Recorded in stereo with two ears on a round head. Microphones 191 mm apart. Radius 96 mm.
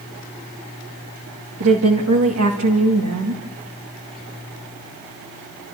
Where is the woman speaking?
75° right (ahead or behind), 2.5 m.